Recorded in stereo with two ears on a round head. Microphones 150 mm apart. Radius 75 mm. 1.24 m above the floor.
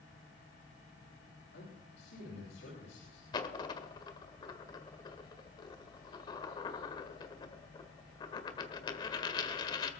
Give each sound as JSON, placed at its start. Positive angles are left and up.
{"t": 1.5, "sound": "a man speaking", "side_deg": 80, "distance_m": 7.5}
{"t": 3.3, "sound": "a dropped coin", "side_deg": 25, "distance_m": 1.6}